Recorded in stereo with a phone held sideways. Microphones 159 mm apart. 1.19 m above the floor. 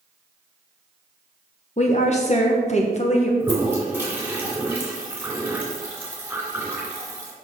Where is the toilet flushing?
10° right (ahead or behind), 2.5 m.